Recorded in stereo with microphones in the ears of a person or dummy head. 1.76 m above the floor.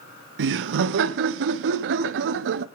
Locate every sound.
0.4 s laughter: 65° right (ahead or behind), 0.8 m